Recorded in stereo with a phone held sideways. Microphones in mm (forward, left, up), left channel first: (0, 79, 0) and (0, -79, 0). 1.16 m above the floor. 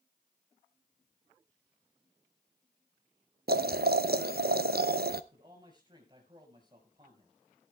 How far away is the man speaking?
About 6 m.